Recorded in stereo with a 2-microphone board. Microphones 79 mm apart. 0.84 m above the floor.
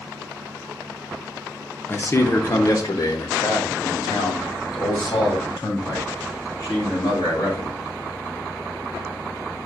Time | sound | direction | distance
1.9 | a man speaking | 25° left (ahead or behind) | 0.6 m